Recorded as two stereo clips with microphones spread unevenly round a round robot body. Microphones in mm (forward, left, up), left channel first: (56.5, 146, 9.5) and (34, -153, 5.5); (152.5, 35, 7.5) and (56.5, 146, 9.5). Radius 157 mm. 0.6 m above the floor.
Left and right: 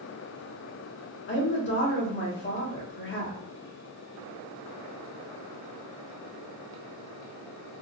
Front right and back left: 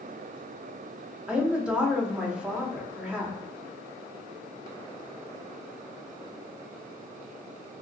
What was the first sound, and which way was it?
A woman speaking, 50° left.